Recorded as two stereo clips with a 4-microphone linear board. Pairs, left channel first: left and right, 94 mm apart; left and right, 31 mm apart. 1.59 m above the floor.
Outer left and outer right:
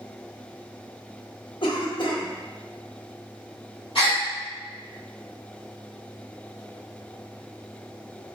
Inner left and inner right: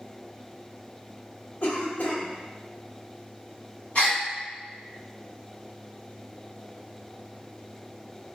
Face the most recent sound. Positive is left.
turn(degrees=70)  # may be behind; listen again after turning